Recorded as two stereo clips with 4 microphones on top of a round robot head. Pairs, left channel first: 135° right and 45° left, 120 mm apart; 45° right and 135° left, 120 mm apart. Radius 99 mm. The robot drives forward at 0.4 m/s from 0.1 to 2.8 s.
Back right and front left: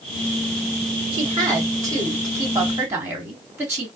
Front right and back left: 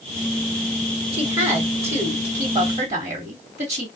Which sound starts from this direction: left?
A woman speaking, at 1.1 s.